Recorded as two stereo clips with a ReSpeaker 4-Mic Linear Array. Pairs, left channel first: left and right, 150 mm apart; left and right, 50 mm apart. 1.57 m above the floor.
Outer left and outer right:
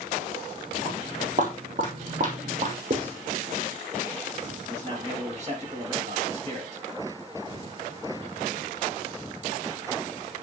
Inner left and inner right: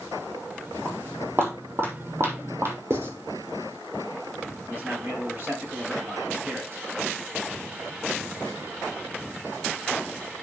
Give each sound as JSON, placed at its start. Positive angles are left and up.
{"t": 0.8, "sound": "footsteps", "side_deg": -55, "distance_m": 4.0}
{"t": 2.9, "sound": "writing", "side_deg": -60, "distance_m": 3.0}
{"t": 4.7, "sound": "a man speaking", "side_deg": -50, "distance_m": 6.5}